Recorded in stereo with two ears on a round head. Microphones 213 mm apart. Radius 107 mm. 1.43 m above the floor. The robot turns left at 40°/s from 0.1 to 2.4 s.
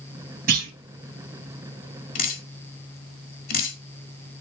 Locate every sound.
0.5 s a clunk: 35° right (ahead or behind), 3 m; by 0.7 s 45° right (ahead or behind), 3 m
2.1 s dripping: 35° left (ahead or behind), 1.5 m